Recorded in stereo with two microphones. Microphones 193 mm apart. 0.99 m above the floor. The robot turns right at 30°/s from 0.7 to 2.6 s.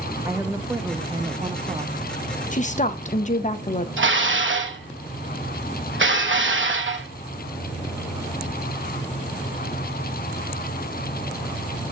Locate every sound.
0.2 s a woman speaking: 150° right, 0.7 m; by 2.0 s 110° right, 0.7 m
2.5 s a woman speaking: 40° left (ahead or behind), 0.6 m
4.0 s dishes clattering: 85° right, 0.9 m